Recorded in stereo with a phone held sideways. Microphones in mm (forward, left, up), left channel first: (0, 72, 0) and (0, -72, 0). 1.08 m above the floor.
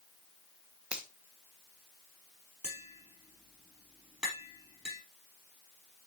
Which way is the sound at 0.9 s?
5° right (ahead or behind).